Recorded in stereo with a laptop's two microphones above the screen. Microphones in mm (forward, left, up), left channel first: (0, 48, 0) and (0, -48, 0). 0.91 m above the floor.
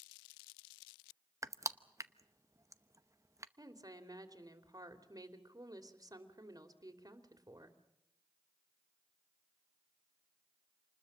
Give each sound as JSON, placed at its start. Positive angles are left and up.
{"t": 1.4, "sound": "crushing", "side_deg": -30, "distance_m": 0.8}
{"t": 3.6, "sound": "a woman speaking", "side_deg": -40, "distance_m": 3.0}